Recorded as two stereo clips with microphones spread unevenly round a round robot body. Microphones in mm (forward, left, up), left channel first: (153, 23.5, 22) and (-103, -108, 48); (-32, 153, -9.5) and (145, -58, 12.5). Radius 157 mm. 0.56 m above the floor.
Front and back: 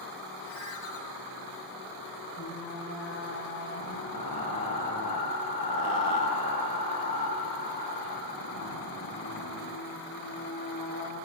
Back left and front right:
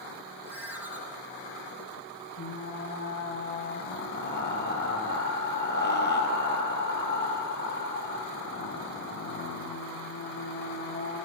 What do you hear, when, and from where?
0.5 s a ringtone: 35° left, 9.5 m
2.4 s frying: 80° left, 8.5 m